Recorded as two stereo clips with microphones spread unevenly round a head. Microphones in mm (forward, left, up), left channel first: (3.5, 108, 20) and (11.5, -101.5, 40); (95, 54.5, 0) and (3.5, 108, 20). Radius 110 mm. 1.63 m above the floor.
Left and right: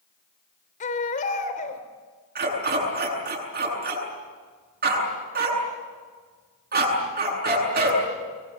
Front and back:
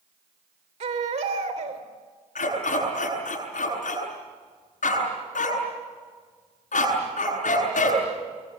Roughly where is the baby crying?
Behind left.